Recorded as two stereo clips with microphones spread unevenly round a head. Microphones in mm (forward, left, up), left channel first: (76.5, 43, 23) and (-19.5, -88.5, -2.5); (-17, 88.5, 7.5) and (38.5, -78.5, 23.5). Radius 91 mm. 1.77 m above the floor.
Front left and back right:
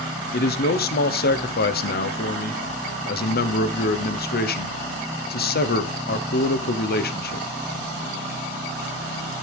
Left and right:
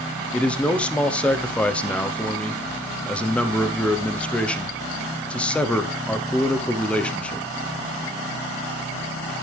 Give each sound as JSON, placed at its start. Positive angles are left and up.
{"t": 0.3, "sound": "a man speaking", "azimuth_deg": 25, "distance_m": 1.2}